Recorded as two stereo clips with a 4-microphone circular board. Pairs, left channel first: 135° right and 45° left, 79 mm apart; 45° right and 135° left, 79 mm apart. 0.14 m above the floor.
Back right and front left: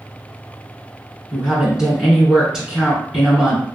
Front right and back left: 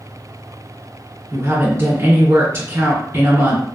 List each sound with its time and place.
1.3 s a woman speaking: 115° left, 1.4 m